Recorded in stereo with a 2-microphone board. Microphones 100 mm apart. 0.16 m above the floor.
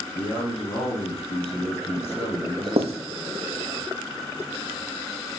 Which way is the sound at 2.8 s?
85° right.